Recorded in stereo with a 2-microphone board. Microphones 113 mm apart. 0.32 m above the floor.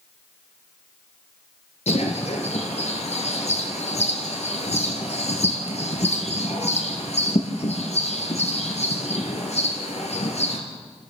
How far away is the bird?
About 3 m.